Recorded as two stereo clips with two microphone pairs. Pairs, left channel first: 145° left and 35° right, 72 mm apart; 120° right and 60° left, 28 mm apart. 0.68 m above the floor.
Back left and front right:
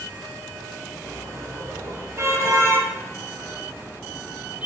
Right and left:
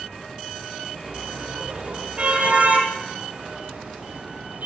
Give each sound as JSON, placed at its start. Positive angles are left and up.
{"t": 1.0, "sound": "a car horn", "azimuth_deg": 5, "distance_m": 8.5}